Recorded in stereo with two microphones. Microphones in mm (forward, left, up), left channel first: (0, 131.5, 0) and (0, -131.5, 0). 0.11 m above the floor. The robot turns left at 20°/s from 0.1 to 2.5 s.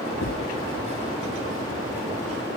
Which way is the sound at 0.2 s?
70° left (ahead or behind).